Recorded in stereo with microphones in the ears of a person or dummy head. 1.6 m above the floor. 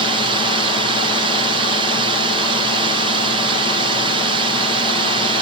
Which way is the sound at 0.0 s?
30° right (ahead or behind).